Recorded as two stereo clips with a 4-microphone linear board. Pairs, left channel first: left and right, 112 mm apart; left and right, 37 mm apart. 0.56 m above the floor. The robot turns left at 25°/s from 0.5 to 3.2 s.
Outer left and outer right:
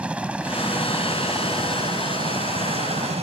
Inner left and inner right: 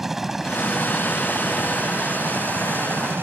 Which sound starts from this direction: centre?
A helicopter, at 0.0 s.